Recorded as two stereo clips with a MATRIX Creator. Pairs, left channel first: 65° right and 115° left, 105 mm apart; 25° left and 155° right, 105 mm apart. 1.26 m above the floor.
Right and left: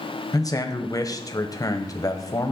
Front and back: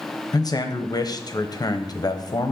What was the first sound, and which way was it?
A man speaking, 20° right.